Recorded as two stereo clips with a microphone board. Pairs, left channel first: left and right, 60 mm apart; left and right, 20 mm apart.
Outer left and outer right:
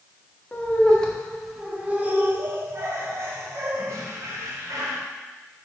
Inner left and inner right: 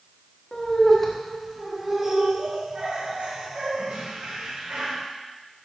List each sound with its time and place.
0.5 s laughter: 30° left (ahead or behind), 1.2 m; by 5.0 s 70° right (ahead or behind), 3 m